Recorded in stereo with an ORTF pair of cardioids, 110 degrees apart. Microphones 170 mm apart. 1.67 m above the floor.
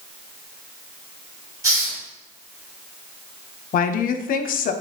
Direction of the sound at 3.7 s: 50° left.